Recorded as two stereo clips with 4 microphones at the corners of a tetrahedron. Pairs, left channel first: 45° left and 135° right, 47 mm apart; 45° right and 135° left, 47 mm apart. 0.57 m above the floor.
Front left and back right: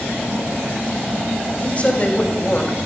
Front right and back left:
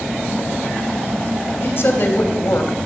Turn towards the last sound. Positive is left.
turn(degrees=-15)